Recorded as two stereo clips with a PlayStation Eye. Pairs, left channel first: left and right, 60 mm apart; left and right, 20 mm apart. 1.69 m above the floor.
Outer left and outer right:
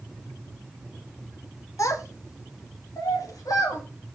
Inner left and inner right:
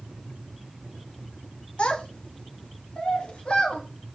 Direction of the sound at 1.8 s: 55° left (ahead or behind).